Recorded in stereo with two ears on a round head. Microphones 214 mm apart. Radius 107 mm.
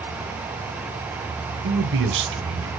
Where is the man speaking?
55° right (ahead or behind), 1.9 m.